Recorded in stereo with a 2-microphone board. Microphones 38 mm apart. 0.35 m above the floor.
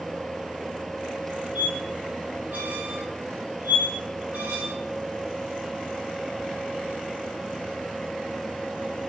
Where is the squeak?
50° right (ahead or behind), 1.4 m.